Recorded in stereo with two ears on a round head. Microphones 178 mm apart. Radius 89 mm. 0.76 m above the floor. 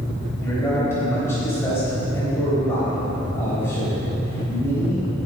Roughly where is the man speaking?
Centre.